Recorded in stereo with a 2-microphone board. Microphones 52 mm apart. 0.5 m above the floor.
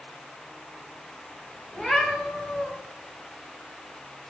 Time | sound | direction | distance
1.7 | a cat meowing | centre (ahead or behind) | 0.6 m